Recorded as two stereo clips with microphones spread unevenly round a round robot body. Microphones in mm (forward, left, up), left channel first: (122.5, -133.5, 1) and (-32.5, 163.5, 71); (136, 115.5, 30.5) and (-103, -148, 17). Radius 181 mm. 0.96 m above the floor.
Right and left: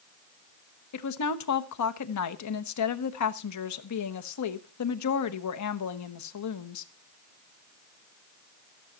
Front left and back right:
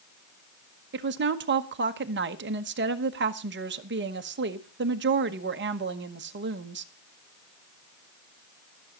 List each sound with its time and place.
0.9 s a woman speaking: 75° right, 1.2 m